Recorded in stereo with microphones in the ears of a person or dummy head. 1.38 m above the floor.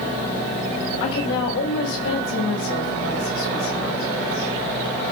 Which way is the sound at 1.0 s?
80° left.